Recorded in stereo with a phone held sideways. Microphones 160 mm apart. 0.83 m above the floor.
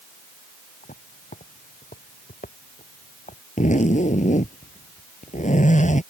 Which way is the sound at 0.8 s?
55° left (ahead or behind).